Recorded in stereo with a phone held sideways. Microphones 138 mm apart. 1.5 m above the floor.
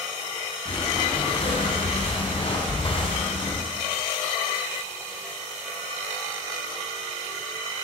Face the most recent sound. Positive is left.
turn(degrees=40)  # may be behind; listen again after turning